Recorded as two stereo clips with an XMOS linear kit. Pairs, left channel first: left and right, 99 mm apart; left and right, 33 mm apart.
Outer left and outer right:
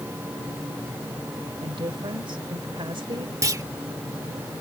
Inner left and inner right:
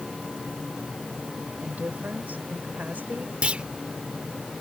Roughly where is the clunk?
Right.